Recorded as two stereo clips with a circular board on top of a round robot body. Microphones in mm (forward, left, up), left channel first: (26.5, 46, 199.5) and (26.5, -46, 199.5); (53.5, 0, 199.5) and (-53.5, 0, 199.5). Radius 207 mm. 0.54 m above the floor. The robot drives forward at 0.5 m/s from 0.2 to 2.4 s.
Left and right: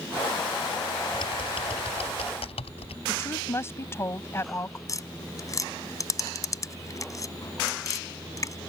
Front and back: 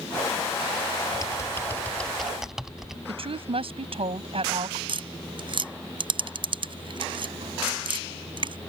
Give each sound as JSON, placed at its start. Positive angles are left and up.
{"t": 1.1, "sound": "typing on a keyboard", "azimuth_deg": 55}
{"t": 3.1, "sound": "a woman speaking", "azimuth_deg": 150}
{"t": 4.9, "sound": "tapping", "azimuth_deg": 145}